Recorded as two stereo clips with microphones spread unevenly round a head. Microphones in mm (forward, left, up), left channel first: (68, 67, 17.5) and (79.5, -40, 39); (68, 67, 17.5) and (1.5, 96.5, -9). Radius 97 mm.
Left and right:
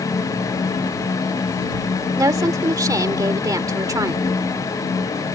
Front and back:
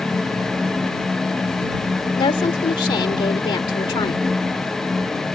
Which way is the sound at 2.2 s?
25° right.